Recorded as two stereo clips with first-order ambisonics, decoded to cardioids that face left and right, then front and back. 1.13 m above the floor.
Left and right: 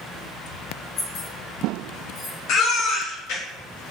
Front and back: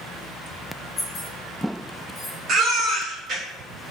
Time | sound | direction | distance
1.0 | keys jangling | 60° left | 1.9 m
2.5 | a baby crying | 120° left | 0.7 m